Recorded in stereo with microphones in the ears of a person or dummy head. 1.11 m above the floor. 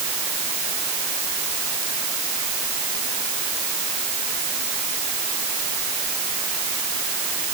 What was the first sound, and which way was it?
Only background noise.